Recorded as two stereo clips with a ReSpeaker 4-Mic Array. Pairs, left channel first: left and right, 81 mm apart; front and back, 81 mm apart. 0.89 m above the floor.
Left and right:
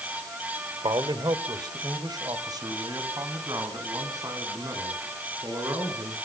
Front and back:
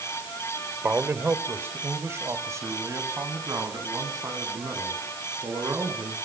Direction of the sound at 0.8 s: 110° right.